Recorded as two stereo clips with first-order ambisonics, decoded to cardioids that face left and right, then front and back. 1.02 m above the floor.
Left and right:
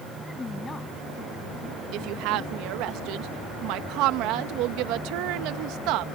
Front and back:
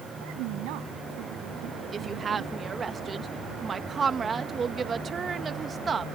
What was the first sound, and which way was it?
A woman speaking, 170° left.